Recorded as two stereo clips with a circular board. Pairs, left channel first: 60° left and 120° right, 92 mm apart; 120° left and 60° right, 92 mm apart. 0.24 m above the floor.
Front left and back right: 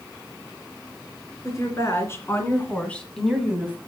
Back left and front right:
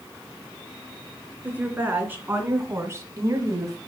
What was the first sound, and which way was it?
A woman speaking, 10° left.